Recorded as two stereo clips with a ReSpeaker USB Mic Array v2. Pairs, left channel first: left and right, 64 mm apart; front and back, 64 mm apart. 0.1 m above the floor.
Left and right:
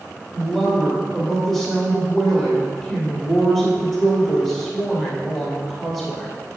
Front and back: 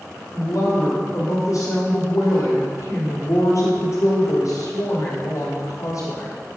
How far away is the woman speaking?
About 2.5 m.